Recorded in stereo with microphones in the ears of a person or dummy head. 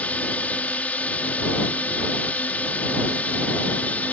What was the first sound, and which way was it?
A drone, 15° left (ahead or behind).